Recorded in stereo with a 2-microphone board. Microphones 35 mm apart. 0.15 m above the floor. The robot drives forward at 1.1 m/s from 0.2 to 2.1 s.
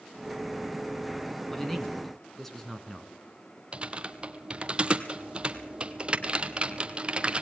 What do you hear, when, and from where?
1.5 s a man speaking: 10° left (ahead or behind), 1.7 m
3.7 s typing on a keyboard: 30° right (ahead or behind), 1.0 m